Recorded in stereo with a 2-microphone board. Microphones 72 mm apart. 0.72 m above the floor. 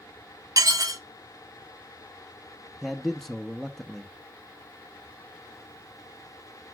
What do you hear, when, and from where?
0.6 s dishes clattering: 55° right (ahead or behind), 0.9 m
2.8 s a man speaking: centre (ahead or behind), 0.8 m